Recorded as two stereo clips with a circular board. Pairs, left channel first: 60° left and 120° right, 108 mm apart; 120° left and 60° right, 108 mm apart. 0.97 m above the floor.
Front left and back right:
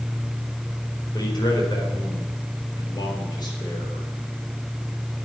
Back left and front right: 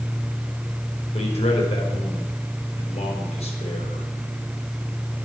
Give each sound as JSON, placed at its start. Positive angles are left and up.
{"t": 1.1, "sound": "a man speaking", "azimuth_deg": 110, "distance_m": 4.0}